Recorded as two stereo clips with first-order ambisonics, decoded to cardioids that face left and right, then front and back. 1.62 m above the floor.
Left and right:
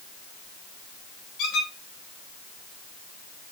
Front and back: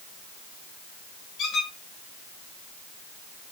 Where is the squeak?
50° left, 4 m.